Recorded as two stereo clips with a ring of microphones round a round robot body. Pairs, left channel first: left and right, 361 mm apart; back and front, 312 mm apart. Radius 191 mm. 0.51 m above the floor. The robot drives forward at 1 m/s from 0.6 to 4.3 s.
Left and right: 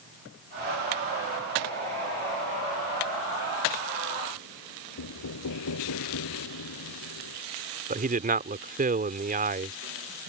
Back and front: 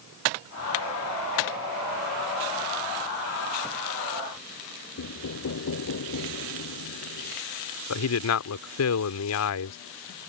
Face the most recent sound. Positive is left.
turn(degrees=-155)